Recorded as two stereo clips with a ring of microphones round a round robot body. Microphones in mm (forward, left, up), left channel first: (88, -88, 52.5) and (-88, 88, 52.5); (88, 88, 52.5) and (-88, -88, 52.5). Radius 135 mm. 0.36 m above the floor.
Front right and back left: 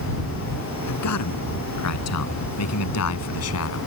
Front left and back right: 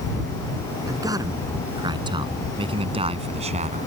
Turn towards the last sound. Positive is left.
turn(degrees=-75)